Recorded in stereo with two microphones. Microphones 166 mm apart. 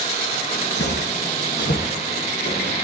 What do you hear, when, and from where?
0.8 s footsteps: 75° left (ahead or behind), 3 m; by 2.8 s 85° left, 6 m